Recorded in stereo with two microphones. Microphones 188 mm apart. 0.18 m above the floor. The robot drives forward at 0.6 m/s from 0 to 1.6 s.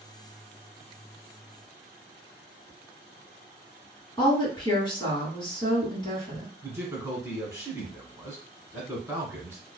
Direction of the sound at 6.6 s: 15° right (ahead or behind).